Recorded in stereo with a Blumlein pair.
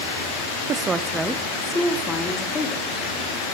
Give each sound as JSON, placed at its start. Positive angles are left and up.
{"t": 0.7, "sound": "a woman speaking", "azimuth_deg": -30, "distance_m": 0.7}